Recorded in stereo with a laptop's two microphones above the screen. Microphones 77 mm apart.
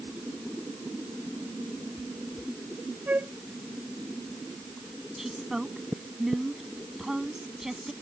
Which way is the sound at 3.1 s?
20° right (ahead or behind).